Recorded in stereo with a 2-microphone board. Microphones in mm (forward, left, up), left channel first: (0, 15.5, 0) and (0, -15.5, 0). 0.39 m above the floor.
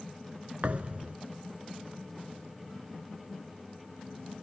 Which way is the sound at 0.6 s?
45° right (ahead or behind).